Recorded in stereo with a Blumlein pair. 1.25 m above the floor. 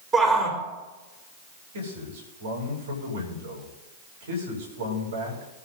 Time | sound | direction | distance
0.1 | a shout | 15° right | 4.5 m
1.7 | a man speaking | 65° right | 5.5 m